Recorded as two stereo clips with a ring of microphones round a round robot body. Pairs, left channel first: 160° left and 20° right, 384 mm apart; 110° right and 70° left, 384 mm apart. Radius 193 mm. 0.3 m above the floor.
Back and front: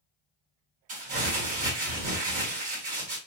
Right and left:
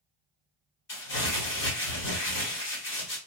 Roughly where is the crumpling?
Right.